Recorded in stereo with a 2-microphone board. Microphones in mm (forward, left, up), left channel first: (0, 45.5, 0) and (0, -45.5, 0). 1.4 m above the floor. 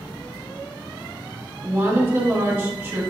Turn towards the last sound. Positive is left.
turn(degrees=-25)  # may be behind; listen again after turning